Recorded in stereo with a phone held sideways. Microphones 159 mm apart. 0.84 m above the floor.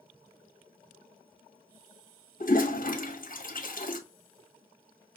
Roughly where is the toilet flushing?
Left.